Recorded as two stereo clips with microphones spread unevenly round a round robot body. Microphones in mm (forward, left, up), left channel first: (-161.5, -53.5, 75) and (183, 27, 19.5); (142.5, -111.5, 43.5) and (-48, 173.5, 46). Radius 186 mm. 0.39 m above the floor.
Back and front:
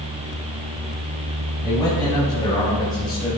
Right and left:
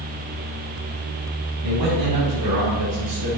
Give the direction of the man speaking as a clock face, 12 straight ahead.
8 o'clock.